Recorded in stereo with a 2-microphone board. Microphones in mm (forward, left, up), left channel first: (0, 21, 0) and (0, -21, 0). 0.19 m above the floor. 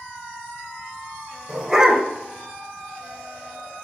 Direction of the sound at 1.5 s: 15° right (ahead or behind).